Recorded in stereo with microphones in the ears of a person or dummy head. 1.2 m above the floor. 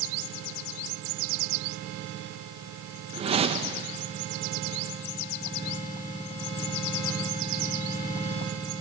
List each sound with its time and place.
3.1 s a whoosh: 25° right (ahead or behind), 0.9 m